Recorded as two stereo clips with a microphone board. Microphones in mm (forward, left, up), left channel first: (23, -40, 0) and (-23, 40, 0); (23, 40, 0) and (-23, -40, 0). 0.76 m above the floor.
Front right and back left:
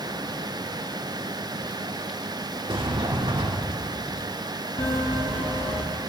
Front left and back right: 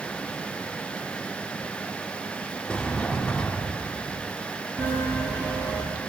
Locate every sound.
2.7 s a sliding door: 135° left, 1.3 m
4.8 s a bell: 50° right, 3 m